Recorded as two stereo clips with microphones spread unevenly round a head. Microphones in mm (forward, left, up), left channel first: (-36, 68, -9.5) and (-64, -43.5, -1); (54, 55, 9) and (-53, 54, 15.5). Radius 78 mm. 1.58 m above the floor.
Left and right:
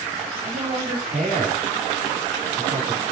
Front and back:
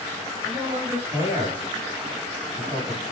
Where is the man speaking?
105° right, 5 m.